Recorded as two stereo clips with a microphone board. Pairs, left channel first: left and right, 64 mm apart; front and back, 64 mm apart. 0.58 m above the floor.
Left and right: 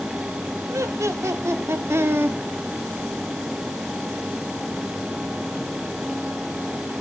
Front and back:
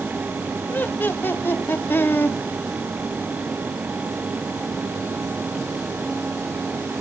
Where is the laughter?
55° right, 2.5 m; by 2.4 s 45° right, 1.1 m.